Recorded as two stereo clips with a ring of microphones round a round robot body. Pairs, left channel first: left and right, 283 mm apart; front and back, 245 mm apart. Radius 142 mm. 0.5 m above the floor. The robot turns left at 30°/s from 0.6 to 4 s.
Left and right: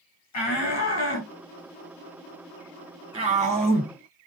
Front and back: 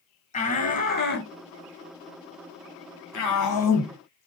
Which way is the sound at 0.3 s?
60° left.